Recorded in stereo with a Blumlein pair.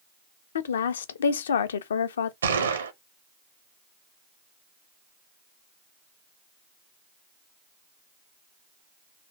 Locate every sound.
0.6 s a woman speaking: 65° left, 0.5 m
2.4 s a gunshot: 70° right, 0.7 m